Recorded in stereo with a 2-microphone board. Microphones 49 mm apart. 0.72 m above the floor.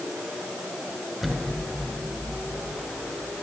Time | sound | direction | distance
1.2 | an explosion | 5° left (ahead or behind) | 3 m